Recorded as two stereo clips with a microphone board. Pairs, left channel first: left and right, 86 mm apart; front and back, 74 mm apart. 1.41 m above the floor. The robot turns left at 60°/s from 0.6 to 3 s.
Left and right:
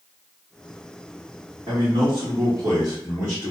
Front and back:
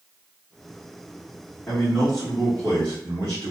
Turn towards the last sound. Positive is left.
turn(degrees=-145)